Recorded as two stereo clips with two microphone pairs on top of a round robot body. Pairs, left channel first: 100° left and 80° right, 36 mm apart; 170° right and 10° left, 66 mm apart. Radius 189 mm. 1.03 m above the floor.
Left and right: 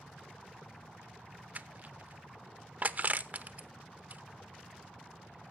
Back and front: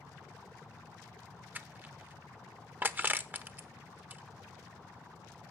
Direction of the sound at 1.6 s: 45° right.